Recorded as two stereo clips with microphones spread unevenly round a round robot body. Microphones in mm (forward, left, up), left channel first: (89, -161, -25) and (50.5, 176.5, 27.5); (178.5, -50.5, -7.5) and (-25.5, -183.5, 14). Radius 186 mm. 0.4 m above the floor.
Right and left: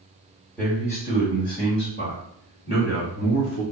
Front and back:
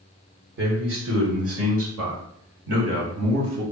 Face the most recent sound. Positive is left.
turn(degrees=-145)